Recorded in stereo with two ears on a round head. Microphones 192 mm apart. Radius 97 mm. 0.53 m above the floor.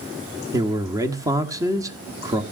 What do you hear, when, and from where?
0.5 s a man speaking: 15° right (ahead or behind), 1.2 m